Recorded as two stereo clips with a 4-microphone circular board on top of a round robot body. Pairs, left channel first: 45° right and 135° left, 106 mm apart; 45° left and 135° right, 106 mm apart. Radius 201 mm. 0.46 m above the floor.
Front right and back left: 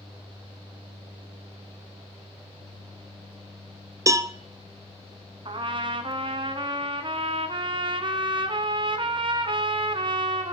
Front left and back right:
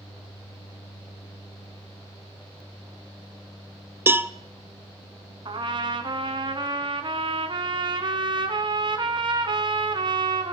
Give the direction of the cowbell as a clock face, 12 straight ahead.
6 o'clock.